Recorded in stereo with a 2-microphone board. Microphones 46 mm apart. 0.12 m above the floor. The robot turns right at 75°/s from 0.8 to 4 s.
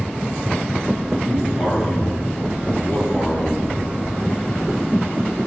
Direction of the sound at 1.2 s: 75° right.